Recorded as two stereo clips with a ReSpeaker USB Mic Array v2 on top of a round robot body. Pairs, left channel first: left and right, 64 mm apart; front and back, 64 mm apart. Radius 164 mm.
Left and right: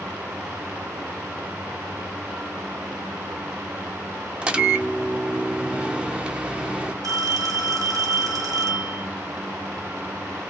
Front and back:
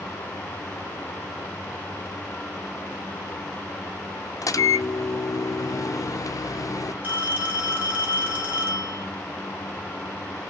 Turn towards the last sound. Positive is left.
turn(degrees=-115)